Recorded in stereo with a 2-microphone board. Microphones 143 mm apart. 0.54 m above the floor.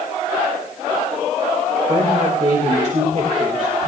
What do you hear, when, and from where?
1.9 s a woman speaking: 60° right (ahead or behind), 2.5 m